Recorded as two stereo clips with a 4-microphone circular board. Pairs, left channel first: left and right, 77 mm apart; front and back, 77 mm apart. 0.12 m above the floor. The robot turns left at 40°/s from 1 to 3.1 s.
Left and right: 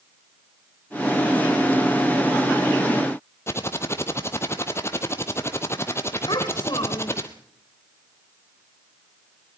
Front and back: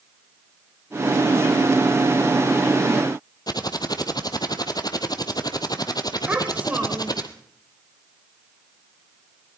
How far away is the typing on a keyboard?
About 1.3 m.